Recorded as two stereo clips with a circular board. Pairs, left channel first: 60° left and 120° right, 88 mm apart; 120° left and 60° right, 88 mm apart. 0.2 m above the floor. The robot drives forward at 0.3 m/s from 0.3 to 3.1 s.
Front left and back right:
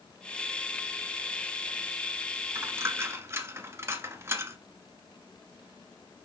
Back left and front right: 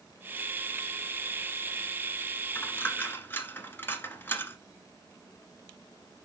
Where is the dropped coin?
175° right, 1.1 m.